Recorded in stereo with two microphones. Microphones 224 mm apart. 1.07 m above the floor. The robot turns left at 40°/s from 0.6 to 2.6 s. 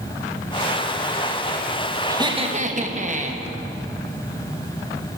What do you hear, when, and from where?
2.1 s laughter: 15° right (ahead or behind), 1.1 m; by 3.4 s 35° right (ahead or behind), 1.1 m